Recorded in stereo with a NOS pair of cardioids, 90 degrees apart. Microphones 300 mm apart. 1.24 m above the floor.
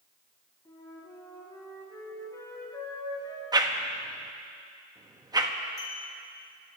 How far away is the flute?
About 4.5 m.